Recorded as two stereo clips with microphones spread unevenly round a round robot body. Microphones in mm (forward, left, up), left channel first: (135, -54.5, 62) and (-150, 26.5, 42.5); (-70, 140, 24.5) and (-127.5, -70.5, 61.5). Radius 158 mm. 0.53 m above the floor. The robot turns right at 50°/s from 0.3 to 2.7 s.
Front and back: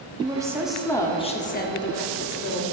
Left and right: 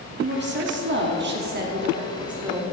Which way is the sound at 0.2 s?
130° right.